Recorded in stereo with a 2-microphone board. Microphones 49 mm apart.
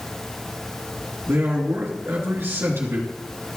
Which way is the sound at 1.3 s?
55° right (ahead or behind).